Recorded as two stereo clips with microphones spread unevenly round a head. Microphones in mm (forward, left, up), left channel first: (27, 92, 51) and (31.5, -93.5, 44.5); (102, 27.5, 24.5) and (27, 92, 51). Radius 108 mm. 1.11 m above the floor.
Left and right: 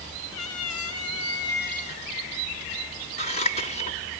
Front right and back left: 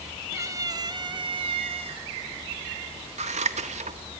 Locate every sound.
0.3 s a cat meowing: 85° left, 1.6 m; by 2.1 s 155° left, 1.3 m
3.2 s scissors: 150° left, 1.6 m